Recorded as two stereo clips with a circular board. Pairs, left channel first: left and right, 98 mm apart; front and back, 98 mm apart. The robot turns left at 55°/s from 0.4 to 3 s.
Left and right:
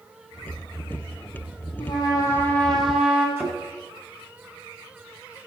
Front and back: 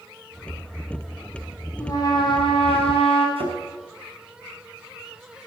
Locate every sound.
1.8 s a trumpet: 60° left, 3.5 m; by 3.3 s 5° right, 3.5 m
3.4 s a thud: 155° right, 5 m